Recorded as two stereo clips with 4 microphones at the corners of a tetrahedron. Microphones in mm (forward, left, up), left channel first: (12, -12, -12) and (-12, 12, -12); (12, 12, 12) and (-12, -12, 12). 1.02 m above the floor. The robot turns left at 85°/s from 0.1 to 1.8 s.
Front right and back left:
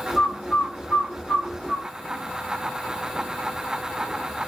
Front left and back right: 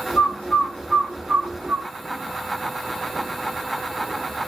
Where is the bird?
20° left, 2.5 m; by 1.9 s 120° right, 2.5 m.